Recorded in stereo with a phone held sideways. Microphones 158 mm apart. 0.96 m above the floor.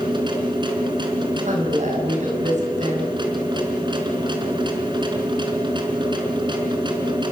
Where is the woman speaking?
55° right (ahead or behind), 7 m.